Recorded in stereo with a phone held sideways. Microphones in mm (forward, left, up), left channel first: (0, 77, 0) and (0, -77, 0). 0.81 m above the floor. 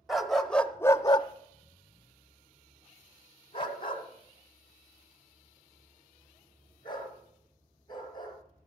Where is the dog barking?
Centre (ahead or behind), 0.9 m; by 8.3 s 30° left (ahead or behind), 4.5 m.